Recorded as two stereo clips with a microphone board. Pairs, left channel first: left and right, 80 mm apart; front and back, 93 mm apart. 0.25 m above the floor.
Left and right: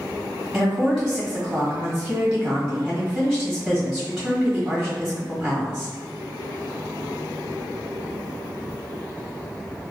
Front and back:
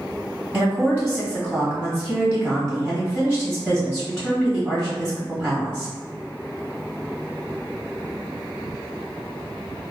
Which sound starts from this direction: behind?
A woman speaking, at 0.5 s.